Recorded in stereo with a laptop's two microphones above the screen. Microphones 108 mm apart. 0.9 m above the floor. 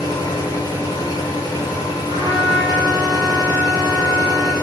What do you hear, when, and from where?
0.0 s a machine running: 40° left (ahead or behind), 1.0 m
2.1 s a trumpet: 60° left (ahead or behind), 1.5 m